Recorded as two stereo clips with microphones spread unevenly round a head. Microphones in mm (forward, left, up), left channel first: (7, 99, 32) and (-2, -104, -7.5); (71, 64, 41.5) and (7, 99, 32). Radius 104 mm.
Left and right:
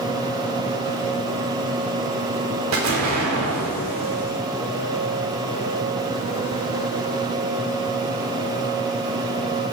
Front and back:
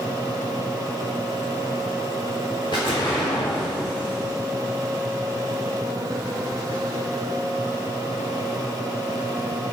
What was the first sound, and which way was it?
An explosion, 85° right.